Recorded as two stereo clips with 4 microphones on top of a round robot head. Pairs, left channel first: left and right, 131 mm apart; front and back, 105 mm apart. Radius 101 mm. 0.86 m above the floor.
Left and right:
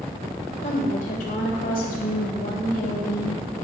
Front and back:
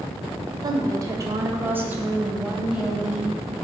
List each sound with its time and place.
0.6 s a woman speaking: 135° left, 3 m; by 3.4 s 95° left, 5 m